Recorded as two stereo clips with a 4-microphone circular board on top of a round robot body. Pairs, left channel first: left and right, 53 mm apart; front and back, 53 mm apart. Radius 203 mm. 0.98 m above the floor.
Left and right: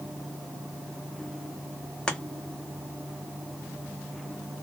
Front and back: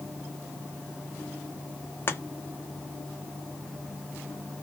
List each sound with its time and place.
2.1 s chopping: 20° left, 1.0 m